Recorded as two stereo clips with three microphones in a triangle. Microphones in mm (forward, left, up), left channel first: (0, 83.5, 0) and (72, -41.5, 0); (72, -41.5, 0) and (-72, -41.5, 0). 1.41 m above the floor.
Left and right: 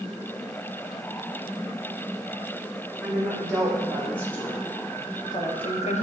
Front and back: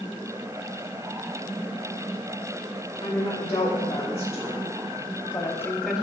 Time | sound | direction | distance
3.0 | a woman speaking | 35° left | 2 m